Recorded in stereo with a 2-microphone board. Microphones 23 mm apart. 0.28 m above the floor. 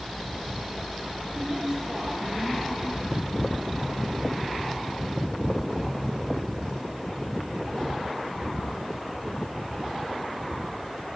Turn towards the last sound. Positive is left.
turn(degrees=-20)  # may be behind; listen again after turning